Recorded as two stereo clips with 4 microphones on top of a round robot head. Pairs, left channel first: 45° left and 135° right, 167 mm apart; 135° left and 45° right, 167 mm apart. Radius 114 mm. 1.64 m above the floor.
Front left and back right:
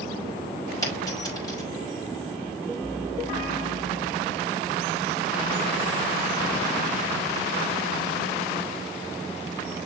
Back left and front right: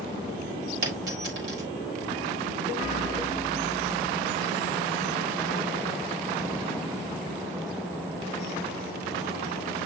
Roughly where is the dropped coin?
Ahead right.